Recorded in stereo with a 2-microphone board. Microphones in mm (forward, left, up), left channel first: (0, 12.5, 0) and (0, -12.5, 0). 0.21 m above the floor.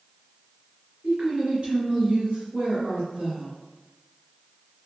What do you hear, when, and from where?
1.0 s a woman speaking: 35° right (ahead or behind), 1.4 m